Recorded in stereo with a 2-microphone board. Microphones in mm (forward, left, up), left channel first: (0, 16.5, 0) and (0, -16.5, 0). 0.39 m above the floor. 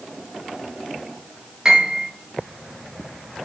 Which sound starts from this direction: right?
A piano, at 1.6 s.